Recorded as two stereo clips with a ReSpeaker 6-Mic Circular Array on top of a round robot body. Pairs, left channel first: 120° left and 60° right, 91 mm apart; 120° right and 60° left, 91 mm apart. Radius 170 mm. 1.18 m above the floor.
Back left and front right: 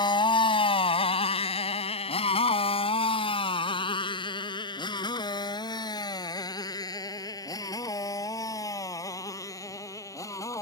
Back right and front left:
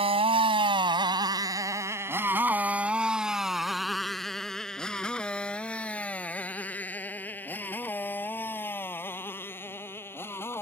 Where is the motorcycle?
80° left; by 10.6 s 175° left.